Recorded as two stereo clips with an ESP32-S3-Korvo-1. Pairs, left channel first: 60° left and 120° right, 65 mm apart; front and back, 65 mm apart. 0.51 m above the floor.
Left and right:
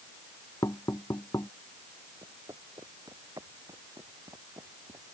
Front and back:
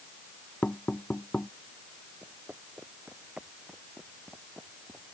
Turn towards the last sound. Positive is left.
turn(degrees=-95)